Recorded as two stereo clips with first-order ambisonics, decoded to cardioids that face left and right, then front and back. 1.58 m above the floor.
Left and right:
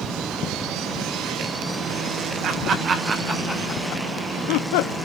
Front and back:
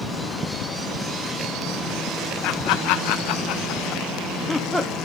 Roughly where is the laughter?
Ahead right.